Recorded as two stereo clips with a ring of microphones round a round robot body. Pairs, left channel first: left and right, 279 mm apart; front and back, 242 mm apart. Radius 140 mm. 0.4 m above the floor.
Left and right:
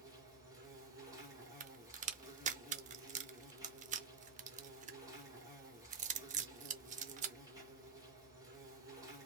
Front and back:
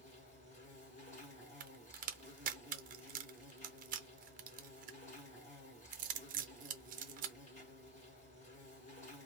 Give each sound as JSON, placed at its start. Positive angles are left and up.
{"t": 0.0, "sound": "an insect", "azimuth_deg": -25, "distance_m": 1.5}
{"t": 1.6, "sound": "a crack", "azimuth_deg": -140, "distance_m": 0.6}